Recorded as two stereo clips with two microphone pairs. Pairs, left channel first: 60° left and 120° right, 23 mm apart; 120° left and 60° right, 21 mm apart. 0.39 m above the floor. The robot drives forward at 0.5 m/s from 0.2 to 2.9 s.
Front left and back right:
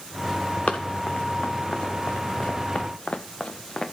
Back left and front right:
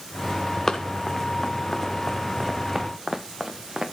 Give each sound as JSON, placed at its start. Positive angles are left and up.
{"t": 0.7, "sound": "running footsteps", "azimuth_deg": 65, "distance_m": 1.5}